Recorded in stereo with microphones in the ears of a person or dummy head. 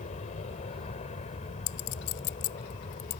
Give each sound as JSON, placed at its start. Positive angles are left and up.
{"t": 0.0, "sound": "an aircraft", "side_deg": 35}
{"t": 1.7, "sound": "a clink", "side_deg": 70}